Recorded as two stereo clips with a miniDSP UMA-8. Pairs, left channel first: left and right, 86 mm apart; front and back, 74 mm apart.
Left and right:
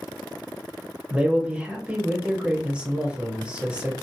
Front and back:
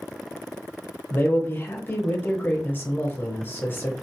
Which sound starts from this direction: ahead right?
A man speaking, at 1.1 s.